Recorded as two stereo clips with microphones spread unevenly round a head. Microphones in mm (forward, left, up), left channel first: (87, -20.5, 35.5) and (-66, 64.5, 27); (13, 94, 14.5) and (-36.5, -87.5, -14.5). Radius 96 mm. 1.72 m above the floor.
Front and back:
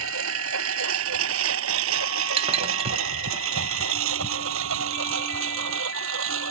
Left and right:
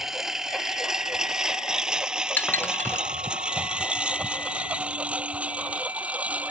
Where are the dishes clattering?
130° left.